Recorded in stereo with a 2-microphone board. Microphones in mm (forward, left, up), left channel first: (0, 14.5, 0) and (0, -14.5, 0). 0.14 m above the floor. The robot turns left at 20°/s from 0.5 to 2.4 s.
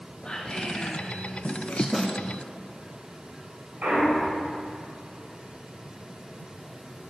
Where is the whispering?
35° left (ahead or behind), 2.5 m; by 1.8 s 50° left (ahead or behind), 2.5 m.